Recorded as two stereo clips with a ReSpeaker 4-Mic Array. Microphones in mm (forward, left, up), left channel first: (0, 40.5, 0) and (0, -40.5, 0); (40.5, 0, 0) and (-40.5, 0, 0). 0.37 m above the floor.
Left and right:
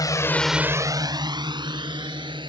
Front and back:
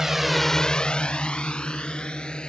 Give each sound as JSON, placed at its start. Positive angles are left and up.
{"t": 0.0, "sound": "a drone", "azimuth_deg": 95}